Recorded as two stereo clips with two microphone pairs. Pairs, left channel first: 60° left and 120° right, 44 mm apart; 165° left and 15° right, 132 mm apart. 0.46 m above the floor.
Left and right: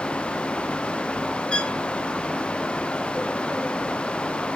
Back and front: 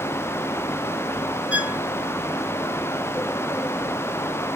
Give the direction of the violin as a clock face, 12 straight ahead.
10 o'clock.